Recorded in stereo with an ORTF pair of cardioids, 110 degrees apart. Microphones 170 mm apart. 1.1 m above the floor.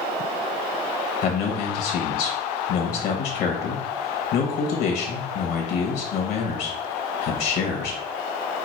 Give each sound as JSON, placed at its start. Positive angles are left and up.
{"t": 1.2, "sound": "a man speaking", "azimuth_deg": 65, "distance_m": 1.1}